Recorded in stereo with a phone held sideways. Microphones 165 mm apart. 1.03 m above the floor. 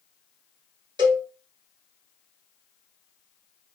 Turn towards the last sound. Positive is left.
turn(degrees=-25)  # may be behind; listen again after turning